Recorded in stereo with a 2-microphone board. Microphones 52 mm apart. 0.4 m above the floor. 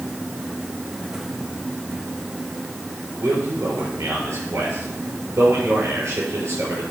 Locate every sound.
3.2 s a man speaking: 60° right (ahead or behind), 6.5 m